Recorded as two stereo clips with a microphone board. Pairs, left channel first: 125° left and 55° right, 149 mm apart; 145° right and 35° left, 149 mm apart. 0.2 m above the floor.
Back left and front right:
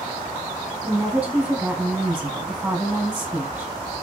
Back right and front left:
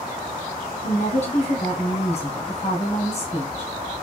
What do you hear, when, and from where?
0.8 s a woman speaking: 130° right, 1.4 m